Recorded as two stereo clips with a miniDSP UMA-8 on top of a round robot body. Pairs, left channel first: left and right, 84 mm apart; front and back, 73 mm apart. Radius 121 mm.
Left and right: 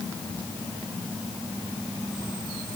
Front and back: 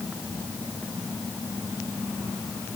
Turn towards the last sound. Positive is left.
No sound to turn to.